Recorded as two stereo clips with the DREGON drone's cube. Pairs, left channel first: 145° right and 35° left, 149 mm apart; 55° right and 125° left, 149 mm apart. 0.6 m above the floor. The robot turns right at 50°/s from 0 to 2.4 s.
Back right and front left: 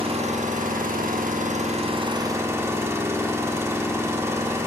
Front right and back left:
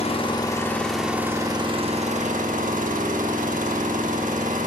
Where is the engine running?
15° right, 0.8 m; by 4.7 s 105° left, 0.8 m.